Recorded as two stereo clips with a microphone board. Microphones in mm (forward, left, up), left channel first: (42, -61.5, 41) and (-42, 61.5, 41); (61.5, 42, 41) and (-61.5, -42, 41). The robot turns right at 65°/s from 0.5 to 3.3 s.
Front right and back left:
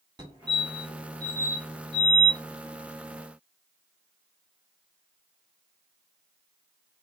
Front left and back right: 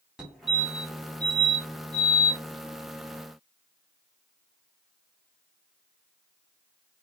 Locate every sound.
0.2 s a fire alarm: 135° left, 1.9 m; by 2.4 s 100° right, 1.9 m